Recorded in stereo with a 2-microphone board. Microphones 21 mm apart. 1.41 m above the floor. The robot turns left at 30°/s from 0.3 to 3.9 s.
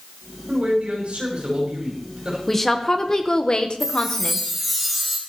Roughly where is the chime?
Centre.